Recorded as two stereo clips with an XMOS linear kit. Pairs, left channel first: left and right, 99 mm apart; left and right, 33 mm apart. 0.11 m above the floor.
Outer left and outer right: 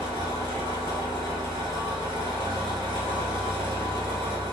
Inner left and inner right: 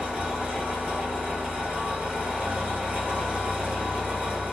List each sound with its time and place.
0.0 s an engine running: 60° right (ahead or behind), 1.7 m